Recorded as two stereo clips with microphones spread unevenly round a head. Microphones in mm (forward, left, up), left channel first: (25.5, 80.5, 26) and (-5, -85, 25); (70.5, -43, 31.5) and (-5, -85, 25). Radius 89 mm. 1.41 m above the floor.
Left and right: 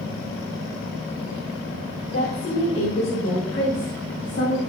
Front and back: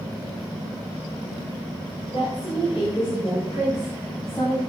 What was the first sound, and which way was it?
A woman speaking, 80° left.